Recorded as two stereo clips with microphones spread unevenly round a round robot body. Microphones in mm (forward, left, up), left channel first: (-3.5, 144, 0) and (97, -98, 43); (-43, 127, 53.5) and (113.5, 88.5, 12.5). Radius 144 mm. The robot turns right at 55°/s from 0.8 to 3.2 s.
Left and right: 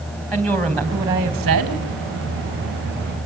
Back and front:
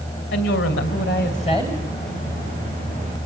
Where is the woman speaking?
160° right, 3 m; by 1.8 s 105° right, 3 m.